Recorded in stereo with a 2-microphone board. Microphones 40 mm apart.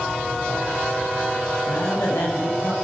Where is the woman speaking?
70° left (ahead or behind), 8 m.